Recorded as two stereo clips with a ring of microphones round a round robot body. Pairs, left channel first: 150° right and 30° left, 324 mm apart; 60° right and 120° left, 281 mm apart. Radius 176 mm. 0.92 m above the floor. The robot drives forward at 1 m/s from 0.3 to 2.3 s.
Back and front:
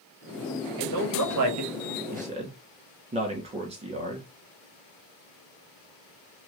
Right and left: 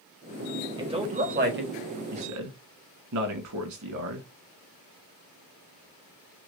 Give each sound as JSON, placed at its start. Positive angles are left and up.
{"t": 0.8, "sound": "a man speaking", "azimuth_deg": 45, "distance_m": 1.8}